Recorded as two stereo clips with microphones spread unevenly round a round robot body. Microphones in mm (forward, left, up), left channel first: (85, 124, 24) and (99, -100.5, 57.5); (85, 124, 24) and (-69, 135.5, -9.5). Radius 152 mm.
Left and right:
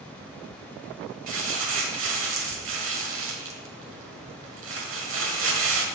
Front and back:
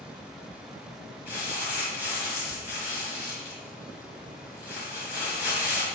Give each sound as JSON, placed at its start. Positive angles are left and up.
{"t": 1.3, "sound": "crumpling", "azimuth_deg": -90, "distance_m": 1.6}